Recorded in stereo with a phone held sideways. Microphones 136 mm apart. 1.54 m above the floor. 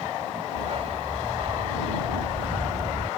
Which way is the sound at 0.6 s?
50° right (ahead or behind).